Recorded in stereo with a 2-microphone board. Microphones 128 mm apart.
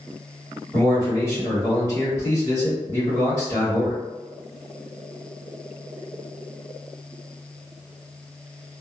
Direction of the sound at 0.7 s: 15° left (ahead or behind).